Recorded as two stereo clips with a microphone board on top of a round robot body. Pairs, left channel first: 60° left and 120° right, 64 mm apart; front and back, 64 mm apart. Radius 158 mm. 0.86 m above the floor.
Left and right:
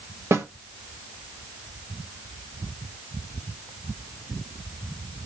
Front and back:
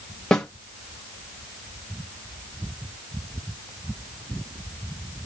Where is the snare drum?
80° right, 1.1 m.